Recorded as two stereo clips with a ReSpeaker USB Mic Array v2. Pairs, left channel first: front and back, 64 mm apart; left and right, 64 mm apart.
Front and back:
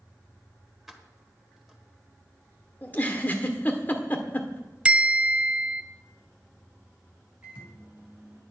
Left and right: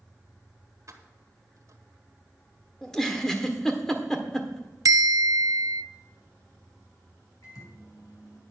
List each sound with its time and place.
0.9 s keys jangling: 95° right, 1.3 m
2.8 s a giggle: 15° left, 1.3 m
4.8 s a bell: 105° right, 0.6 m
7.4 s a microwave: 115° left, 3 m